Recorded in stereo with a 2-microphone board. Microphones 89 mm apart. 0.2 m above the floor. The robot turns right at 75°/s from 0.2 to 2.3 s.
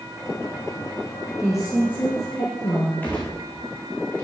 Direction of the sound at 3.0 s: 20° left (ahead or behind).